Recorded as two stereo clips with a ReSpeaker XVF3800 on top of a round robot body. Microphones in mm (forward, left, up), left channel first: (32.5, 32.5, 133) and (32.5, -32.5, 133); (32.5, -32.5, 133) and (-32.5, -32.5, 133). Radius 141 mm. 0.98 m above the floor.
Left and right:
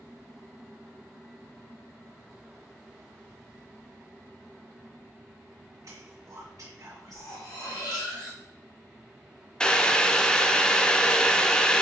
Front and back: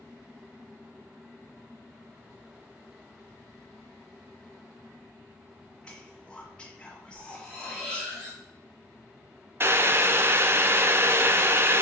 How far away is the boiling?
About 0.6 m.